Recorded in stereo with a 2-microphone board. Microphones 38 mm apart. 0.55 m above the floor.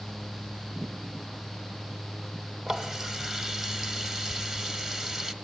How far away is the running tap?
About 1.0 m.